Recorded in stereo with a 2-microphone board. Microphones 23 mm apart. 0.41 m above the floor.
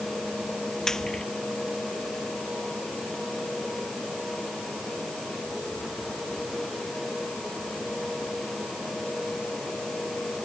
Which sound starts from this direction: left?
Frying, at 0.9 s.